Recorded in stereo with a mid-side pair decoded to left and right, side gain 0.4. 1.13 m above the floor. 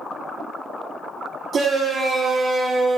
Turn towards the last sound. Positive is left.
turn(degrees=-40)